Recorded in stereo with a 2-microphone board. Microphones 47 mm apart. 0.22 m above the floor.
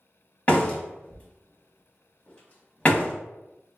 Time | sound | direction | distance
0.5 | a door slam | 30° left (ahead or behind) | 0.8 m